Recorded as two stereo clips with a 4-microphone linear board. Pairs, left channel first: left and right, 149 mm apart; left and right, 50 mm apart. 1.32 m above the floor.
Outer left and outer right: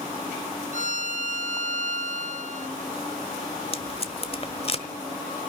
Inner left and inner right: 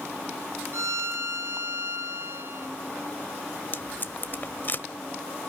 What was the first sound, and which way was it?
A violin, 60° right (ahead or behind).